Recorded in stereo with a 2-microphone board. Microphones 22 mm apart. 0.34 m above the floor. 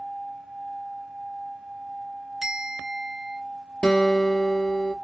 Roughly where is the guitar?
Left.